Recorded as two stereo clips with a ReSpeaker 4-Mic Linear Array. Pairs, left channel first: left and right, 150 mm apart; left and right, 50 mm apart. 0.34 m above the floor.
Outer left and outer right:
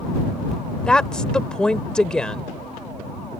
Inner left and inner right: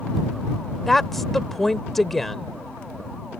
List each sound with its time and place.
0.9 s a woman speaking: 5° left (ahead or behind)